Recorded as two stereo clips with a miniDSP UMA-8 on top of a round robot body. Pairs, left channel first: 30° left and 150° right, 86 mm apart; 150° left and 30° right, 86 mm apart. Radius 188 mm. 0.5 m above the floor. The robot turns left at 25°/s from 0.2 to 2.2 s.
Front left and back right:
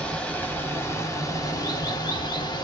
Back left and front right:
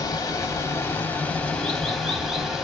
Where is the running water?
105° left, 1.5 m; by 2.6 s 55° left, 1.5 m.